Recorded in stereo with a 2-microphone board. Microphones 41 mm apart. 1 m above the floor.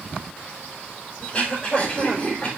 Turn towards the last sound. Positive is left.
turn(degrees=25)  # may be behind; listen again after turning